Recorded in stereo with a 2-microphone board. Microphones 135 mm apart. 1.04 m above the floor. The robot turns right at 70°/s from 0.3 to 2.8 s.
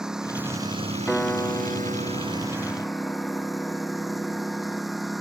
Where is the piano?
Centre (ahead or behind); by 4.8 s 25° left (ahead or behind).